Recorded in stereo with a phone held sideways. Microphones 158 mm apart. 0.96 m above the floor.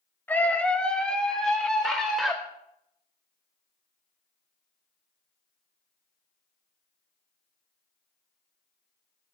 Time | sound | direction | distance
0.3 | a scream | 10° left (ahead or behind) | 1.3 m